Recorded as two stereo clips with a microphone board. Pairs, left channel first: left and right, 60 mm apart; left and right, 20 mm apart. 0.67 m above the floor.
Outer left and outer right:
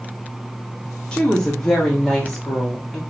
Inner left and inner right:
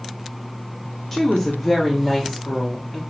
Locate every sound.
1.1 s a woman speaking: 15° left (ahead or behind), 0.9 m; by 3.0 s centre (ahead or behind), 1.6 m